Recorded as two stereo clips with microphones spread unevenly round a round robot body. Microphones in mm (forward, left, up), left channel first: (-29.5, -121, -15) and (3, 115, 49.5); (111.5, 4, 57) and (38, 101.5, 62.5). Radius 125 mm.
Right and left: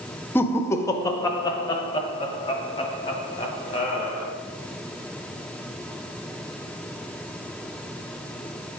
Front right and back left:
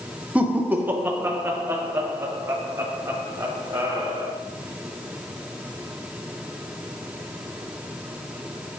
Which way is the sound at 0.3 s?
155° right.